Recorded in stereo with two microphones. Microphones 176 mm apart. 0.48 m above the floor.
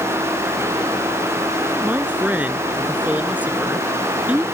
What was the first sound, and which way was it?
A man speaking, 10° right (ahead or behind).